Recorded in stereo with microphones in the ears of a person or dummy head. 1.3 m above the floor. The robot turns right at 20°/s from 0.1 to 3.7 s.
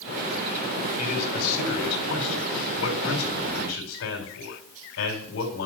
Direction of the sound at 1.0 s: 50° left.